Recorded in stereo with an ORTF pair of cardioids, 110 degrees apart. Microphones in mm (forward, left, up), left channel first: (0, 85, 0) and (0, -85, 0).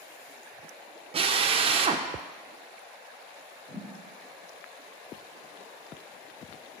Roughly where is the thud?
Ahead.